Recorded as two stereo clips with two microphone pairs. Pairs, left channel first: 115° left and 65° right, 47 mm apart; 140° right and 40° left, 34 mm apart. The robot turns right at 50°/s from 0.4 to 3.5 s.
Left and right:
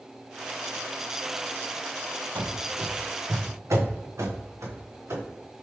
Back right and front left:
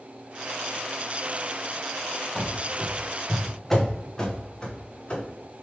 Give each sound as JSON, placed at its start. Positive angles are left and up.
{"t": 2.4, "sound": "running footsteps", "azimuth_deg": -65, "distance_m": 0.9}